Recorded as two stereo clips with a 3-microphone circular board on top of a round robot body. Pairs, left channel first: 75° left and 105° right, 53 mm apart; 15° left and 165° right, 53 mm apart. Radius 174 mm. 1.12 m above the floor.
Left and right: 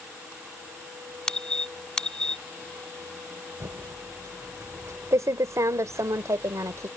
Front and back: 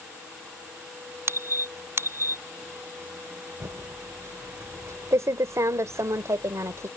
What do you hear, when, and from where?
1.3 s a squeak: 155° left
3.6 s typing on a keyboard: 135° right